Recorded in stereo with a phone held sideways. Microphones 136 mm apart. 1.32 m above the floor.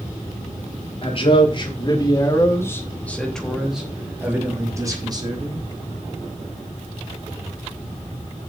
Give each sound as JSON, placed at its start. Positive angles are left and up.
{"t": 1.0, "sound": "a man speaking", "side_deg": 45, "distance_m": 4.0}